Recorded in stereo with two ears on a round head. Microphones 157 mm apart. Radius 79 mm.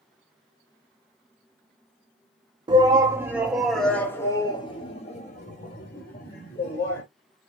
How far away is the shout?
About 1.2 m.